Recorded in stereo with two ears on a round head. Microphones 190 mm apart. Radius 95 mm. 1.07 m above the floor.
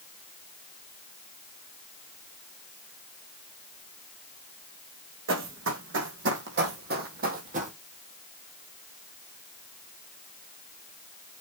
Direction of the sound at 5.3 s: 65° right (ahead or behind).